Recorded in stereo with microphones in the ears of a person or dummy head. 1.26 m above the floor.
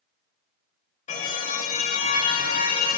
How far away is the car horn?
About 3.5 m.